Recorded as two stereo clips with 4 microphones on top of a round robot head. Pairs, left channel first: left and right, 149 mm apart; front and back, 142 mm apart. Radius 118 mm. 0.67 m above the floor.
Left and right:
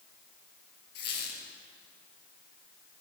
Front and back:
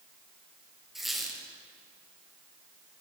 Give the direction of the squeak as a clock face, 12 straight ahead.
9 o'clock.